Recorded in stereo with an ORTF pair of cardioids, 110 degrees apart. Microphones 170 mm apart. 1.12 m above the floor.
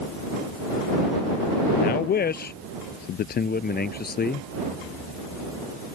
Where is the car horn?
No car horn in this recording.